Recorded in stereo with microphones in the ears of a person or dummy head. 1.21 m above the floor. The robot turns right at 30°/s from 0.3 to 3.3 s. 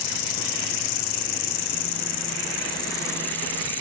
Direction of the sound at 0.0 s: 85° left.